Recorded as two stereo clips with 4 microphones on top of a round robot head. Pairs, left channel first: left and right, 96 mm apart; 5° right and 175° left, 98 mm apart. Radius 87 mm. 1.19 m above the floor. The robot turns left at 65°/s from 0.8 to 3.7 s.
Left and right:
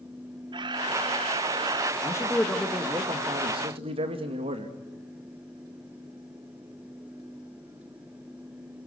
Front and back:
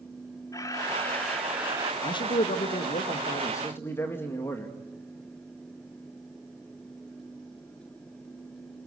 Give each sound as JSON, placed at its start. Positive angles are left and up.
{"t": 0.5, "sound": "a camera shutter", "azimuth_deg": -55, "distance_m": 1.3}
{"t": 2.0, "sound": "a man speaking", "azimuth_deg": 35, "distance_m": 1.8}